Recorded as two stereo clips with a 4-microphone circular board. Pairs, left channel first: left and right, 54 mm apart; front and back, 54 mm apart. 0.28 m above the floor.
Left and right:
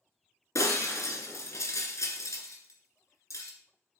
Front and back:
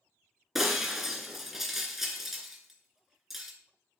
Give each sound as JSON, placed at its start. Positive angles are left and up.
{"t": 0.6, "sound": "breaking glass", "azimuth_deg": 100, "distance_m": 2.0}